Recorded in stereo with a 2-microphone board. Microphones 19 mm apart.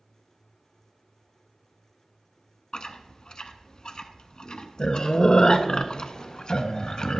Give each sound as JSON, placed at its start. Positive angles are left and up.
{"t": 2.7, "sound": "chewing", "side_deg": 50, "distance_m": 0.5}